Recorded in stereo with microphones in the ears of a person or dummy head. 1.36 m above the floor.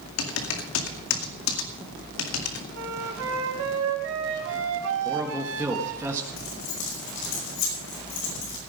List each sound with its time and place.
0.2 s typing on a keyboard: 80° left, 2 m
2.7 s a flute: 75° right (ahead or behind), 4 m
5.0 s a man speaking: 10° right (ahead or behind), 1.5 m
6.4 s keys jangling: 70° left (ahead or behind), 5.5 m